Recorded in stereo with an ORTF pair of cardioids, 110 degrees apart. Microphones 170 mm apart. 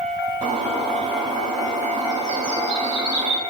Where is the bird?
45° right, 2.5 m.